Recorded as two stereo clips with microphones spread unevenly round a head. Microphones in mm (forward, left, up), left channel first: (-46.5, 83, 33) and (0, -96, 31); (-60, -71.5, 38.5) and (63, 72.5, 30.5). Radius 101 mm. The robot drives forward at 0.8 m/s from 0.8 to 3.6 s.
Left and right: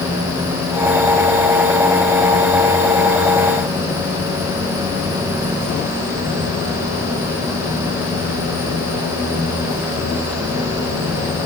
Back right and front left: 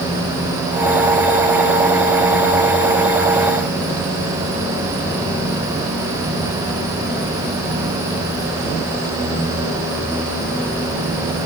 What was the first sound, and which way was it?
Only background noise.